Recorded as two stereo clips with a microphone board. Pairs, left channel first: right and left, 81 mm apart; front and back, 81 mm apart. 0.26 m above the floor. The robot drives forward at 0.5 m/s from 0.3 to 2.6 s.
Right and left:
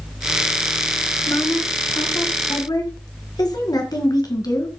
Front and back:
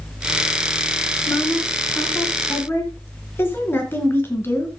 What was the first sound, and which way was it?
A woman speaking, 50° right.